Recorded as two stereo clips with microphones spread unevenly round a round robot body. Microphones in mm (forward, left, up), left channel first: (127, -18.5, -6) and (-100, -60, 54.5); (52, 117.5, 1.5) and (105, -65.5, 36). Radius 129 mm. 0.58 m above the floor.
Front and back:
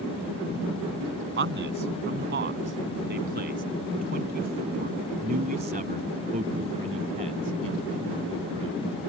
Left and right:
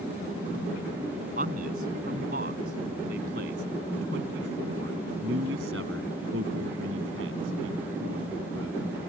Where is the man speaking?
130° right; by 8.8 s 105° right.